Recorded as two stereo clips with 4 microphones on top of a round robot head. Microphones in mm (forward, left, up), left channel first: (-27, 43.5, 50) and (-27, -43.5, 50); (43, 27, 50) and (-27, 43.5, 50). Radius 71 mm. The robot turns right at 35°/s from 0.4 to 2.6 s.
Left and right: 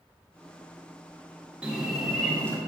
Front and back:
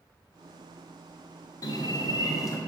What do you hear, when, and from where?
1.6 s a bird: 15° right, 1.5 m; by 2.6 s 20° left, 1.5 m